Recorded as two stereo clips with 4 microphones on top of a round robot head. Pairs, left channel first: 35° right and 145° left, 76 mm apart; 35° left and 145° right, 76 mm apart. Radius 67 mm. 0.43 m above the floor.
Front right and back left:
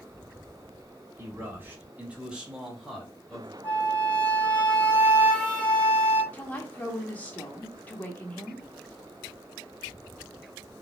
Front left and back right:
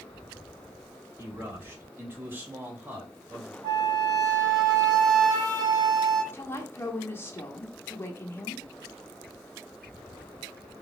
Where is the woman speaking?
15° left, 0.9 m.